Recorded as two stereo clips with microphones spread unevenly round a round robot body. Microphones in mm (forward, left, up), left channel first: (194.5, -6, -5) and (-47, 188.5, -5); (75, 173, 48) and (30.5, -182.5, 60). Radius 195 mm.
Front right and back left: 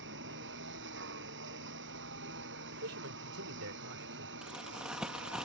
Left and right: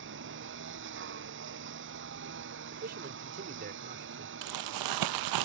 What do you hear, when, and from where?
0.0 s a lawn mower: 155° right
2.7 s a man speaking: 165° right
4.4 s crumpling: 130° right